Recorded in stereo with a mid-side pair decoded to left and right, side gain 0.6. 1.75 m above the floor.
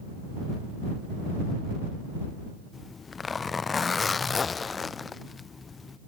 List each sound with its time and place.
2.7 s a zipper: 25° left